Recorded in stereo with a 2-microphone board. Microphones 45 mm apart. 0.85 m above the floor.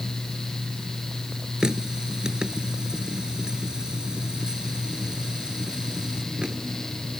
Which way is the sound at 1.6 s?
15° right (ahead or behind).